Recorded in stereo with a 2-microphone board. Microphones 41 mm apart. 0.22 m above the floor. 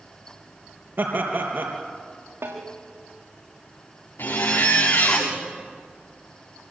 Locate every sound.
1.0 s laughter: 70° right (ahead or behind), 4 m
2.4 s a snare drum: 85° right, 7 m
4.2 s a zipper: 80° left, 7 m